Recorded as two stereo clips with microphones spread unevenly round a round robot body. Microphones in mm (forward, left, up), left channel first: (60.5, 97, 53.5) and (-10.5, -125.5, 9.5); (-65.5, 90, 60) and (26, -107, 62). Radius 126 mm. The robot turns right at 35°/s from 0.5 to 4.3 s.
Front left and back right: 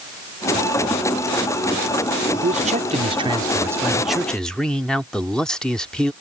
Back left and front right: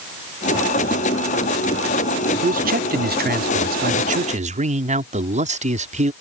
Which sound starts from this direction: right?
A man speaking, at 2.4 s.